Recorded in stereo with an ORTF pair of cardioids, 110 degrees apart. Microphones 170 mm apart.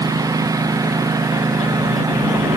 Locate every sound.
0.0 s a lawn mower: 20° right